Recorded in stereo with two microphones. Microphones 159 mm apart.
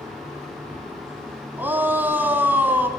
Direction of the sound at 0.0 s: 15° right (ahead or behind).